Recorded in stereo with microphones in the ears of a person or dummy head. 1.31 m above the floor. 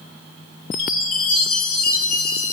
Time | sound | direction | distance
0.7 | a chime | 50° left (ahead or behind) | 1.4 m